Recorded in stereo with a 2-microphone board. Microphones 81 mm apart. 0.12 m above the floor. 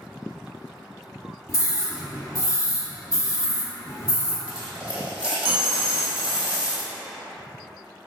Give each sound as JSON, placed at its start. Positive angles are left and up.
{"t": 1.5, "sound": "a scream", "side_deg": 40, "distance_m": 1.6}
{"t": 4.5, "sound": "a dropped coin", "side_deg": -10, "distance_m": 1.3}